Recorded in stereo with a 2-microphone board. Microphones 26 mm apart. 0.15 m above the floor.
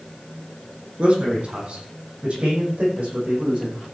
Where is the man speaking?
45° right (ahead or behind), 6.5 m; by 3.9 s 65° right (ahead or behind), 9 m.